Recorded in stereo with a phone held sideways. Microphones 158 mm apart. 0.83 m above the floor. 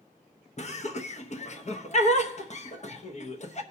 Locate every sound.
0.6 s laughter: 45° left (ahead or behind), 0.7 m